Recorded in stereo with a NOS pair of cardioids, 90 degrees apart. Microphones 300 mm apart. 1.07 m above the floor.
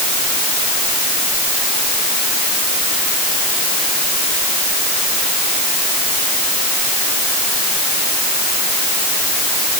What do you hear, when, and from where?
Only background noise.